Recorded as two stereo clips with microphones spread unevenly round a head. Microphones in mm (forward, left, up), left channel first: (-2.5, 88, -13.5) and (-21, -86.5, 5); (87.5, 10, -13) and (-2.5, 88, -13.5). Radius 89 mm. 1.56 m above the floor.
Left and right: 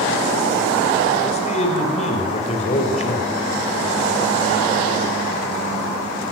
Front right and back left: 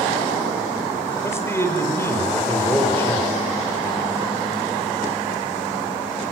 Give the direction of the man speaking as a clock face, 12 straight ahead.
11 o'clock.